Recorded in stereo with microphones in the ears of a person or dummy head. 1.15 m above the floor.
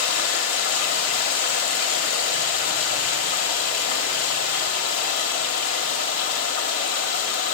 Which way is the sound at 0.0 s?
55° left (ahead or behind).